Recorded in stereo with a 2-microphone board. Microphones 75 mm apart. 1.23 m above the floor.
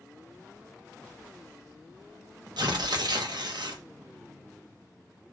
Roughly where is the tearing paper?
Right.